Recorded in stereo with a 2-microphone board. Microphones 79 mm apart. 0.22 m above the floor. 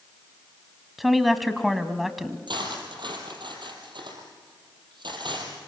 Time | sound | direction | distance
1.0 | a woman speaking | centre (ahead or behind) | 1.5 m
2.5 | cutlery clinking | 75° right (ahead or behind) | 4.5 m